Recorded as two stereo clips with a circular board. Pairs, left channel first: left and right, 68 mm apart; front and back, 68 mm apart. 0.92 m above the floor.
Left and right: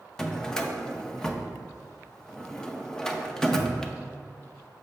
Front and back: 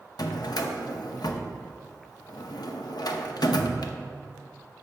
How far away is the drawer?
About 0.6 m.